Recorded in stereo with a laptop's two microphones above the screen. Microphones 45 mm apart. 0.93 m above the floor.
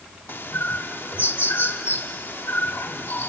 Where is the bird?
55° left (ahead or behind), 1.0 m.